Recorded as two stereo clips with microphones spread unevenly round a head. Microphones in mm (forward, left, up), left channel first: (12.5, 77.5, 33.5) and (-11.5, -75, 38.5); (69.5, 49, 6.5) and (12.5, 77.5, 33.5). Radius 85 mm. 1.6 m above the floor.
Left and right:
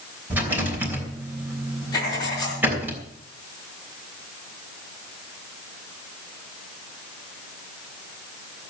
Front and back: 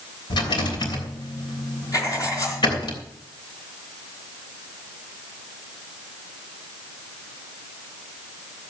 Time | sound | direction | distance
0.3 | a rattle | 20° right | 3 m
1.9 | writing | 15° left | 4 m